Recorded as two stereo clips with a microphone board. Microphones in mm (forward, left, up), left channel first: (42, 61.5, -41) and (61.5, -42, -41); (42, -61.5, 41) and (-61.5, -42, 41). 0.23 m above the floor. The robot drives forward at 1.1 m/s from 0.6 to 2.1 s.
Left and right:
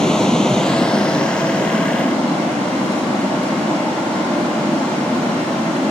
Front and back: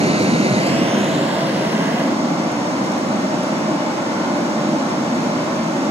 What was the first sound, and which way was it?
Running water, 175° right.